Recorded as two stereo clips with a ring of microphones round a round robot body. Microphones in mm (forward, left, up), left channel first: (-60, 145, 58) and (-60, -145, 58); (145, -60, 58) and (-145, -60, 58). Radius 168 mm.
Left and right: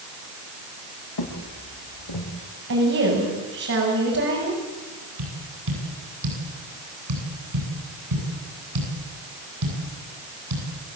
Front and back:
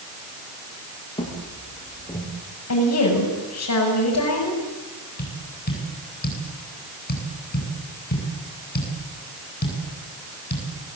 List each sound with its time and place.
1.2 s footsteps: 75° left, 8 m; by 2.3 s 80° left, 7.5 m
2.7 s a woman speaking: 35° right, 7 m
5.2 s tapping: 60° right, 9.5 m